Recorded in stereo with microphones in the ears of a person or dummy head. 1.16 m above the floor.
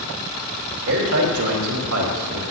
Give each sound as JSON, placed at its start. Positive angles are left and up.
{"t": 0.9, "sound": "a man speaking", "side_deg": -75, "distance_m": 3.0}